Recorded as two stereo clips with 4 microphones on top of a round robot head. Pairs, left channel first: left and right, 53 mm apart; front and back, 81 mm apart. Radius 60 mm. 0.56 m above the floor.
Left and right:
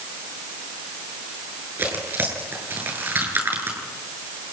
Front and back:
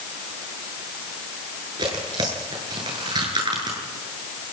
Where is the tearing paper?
135° right, 9 m.